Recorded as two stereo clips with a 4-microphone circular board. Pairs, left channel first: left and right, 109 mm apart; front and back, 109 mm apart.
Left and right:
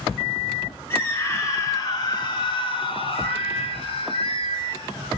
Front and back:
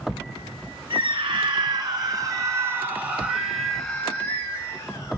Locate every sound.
0.9 s a scream: 150° left, 4 m; by 5.2 s 55° left, 3.5 m